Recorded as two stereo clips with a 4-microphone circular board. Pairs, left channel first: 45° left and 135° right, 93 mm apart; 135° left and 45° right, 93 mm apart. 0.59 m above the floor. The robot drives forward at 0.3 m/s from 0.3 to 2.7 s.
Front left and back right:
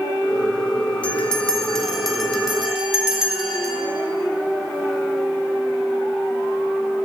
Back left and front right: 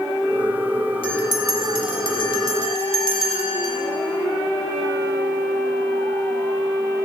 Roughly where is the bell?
Behind left.